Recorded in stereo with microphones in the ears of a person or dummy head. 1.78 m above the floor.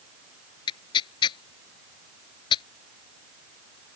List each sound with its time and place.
0.7 s tearing paper: 25° left (ahead or behind)